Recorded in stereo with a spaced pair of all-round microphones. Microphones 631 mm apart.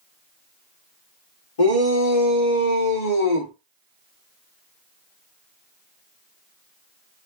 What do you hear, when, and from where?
1.6 s a shout: 60° left (ahead or behind), 1.7 m; by 3.5 s 85° left, 1.3 m